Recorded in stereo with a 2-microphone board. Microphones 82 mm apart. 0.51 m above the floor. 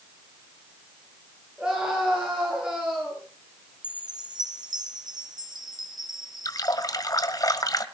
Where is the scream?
10° right (ahead or behind), 8 m.